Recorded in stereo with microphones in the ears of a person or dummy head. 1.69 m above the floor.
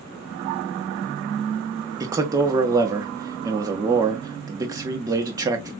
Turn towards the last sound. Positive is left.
turn(degrees=-20)  # may be behind; listen again after turning